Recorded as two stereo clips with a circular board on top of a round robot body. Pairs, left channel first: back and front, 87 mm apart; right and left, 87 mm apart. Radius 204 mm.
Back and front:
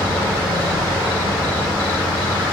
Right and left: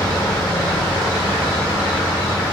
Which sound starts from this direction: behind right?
An insect, at 0.0 s.